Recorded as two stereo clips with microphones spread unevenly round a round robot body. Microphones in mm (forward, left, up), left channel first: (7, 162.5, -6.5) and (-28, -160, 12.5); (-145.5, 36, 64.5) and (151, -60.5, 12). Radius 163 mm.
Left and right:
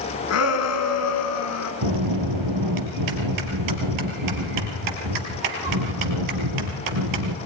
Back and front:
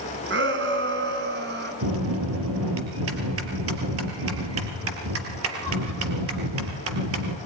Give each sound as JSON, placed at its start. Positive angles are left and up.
{"t": 0.3, "sound": "a shout", "azimuth_deg": 35, "distance_m": 5.5}
{"t": 1.8, "sound": "a bell", "azimuth_deg": -65, "distance_m": 4.0}